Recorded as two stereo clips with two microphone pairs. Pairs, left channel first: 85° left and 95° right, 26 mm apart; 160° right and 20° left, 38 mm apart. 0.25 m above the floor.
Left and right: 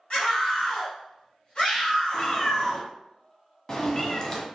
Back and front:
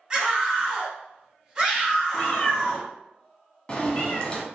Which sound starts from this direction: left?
A scream, at 0.1 s.